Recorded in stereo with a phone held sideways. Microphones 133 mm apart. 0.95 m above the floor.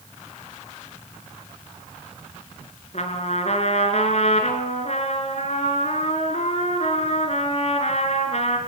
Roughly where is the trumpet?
Left.